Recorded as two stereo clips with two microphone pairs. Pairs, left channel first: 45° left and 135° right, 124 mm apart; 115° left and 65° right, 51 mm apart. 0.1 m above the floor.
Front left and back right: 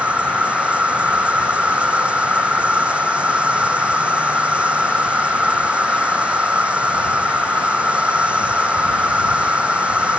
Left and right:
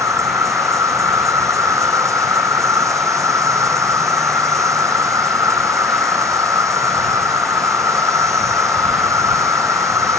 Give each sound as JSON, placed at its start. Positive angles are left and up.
{"t": 0.0, "sound": "an insect", "azimuth_deg": -55}